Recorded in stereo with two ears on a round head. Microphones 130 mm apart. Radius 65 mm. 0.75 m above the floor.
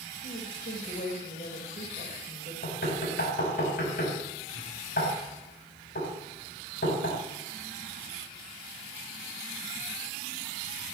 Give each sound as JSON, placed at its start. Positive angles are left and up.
{"t": 0.2, "sound": "a woman speaking", "side_deg": 60, "distance_m": 4.0}
{"t": 2.6, "sound": "knocking", "side_deg": 70, "distance_m": 4.5}